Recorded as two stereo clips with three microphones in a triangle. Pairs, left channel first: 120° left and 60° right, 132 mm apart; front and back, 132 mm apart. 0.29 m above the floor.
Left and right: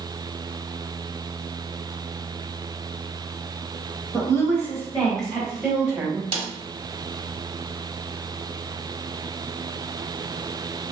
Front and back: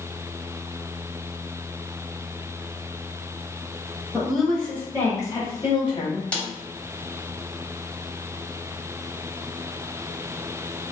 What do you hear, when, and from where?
4.1 s a woman speaking: 100° left, 1.1 m; by 6.2 s 10° left, 1.3 m
6.3 s a snare drum: 75° right, 0.7 m